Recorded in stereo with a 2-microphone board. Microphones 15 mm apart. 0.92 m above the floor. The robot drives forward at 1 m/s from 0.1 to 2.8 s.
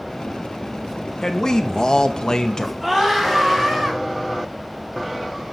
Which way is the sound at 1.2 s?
45° left (ahead or behind).